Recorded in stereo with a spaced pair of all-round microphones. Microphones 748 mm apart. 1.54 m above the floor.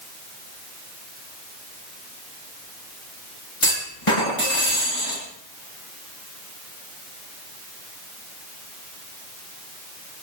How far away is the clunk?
About 9.5 m.